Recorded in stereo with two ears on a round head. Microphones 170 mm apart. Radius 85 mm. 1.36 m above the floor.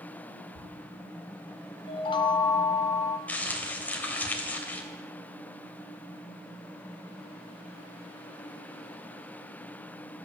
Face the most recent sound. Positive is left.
turn(degrees=10)  # may be behind; listen again after turning